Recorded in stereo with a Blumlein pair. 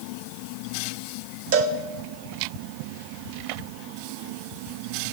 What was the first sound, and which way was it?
A cowbell, 50° right.